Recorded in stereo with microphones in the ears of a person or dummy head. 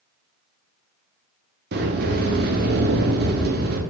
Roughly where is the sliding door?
Right.